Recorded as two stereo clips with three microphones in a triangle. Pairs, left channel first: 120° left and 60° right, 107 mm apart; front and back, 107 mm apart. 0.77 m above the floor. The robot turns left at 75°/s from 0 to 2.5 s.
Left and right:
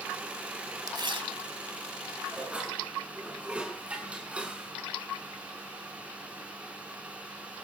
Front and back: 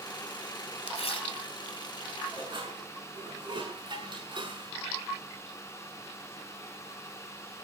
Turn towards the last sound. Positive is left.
turn(degrees=-135)